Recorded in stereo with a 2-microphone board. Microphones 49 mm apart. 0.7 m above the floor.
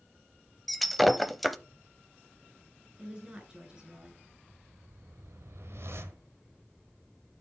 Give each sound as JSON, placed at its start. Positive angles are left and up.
{"t": 0.7, "sound": "breaking glass", "side_deg": 0, "distance_m": 0.5}
{"t": 3.0, "sound": "a woman speaking", "side_deg": -20, "distance_m": 5.5}
{"t": 4.4, "sound": "a whoosh", "side_deg": -65, "distance_m": 1.2}